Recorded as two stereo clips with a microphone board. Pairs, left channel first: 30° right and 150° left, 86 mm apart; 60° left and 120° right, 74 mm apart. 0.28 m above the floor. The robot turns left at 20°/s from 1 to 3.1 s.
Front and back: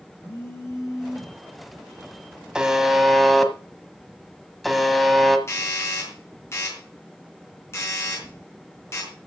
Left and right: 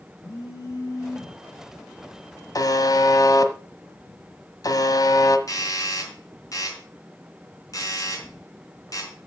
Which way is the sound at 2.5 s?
70° left.